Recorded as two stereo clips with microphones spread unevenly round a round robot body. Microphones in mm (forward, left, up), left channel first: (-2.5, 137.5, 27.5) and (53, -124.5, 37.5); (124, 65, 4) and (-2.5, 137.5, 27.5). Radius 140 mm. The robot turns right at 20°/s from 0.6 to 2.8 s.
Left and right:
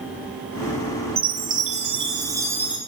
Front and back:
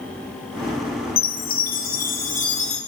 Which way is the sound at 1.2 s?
25° right.